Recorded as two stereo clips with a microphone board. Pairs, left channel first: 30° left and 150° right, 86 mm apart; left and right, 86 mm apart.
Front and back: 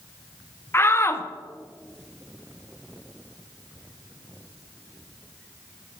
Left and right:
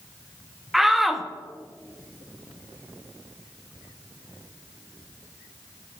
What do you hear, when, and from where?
0.7 s a shout: 5° right, 0.6 m